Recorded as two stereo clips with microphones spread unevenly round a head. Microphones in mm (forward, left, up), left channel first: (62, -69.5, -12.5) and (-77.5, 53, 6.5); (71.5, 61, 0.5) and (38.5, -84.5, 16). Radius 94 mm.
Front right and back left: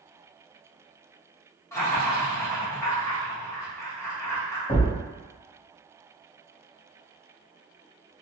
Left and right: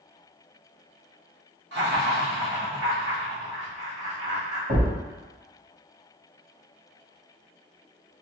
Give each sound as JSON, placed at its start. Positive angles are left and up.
{"t": 1.7, "sound": "laughter", "azimuth_deg": -120, "distance_m": 1.3}
{"t": 4.7, "sound": "a thud", "azimuth_deg": -100, "distance_m": 1.8}